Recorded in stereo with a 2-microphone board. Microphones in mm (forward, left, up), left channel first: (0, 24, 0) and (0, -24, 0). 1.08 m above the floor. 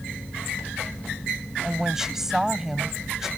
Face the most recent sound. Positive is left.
turn(degrees=-10)  # may be behind; listen again after turning